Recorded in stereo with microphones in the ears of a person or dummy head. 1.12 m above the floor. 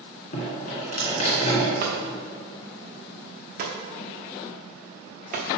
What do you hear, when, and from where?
0.3 s dripping: 45° left (ahead or behind), 2.5 m
1.8 s hammering: 45° right (ahead or behind), 0.8 m